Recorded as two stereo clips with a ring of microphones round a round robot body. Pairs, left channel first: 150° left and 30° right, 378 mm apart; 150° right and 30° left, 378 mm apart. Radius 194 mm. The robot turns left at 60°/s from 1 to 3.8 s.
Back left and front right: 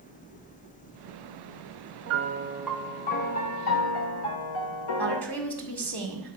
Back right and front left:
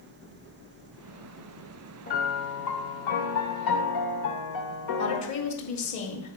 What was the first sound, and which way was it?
A piano, 80° right.